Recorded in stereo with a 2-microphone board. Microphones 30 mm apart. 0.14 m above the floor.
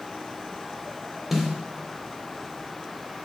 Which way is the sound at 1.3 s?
10° right (ahead or behind).